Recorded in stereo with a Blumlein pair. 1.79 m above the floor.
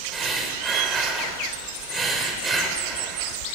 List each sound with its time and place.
0.1 s breathing: 20° right, 1.3 m